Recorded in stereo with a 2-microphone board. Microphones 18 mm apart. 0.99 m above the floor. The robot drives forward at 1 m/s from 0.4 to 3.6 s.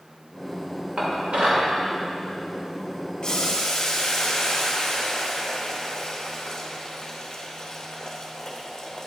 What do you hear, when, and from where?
1.0 s dishes clattering: 75° right (ahead or behind), 2 m; by 1.7 s 85° right, 2.0 m
3.2 s boiling: 40° left (ahead or behind), 1.0 m; by 9.1 s 35° left (ahead or behind), 1.2 m